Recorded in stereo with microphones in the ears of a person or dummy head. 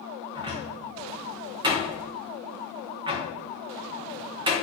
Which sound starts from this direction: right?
A cupboard door, at 0.3 s.